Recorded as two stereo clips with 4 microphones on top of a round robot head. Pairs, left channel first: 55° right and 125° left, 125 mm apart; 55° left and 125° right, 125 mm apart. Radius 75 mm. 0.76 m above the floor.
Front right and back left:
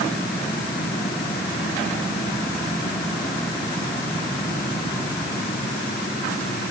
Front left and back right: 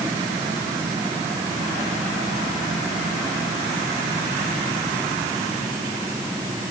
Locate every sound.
Only background noise.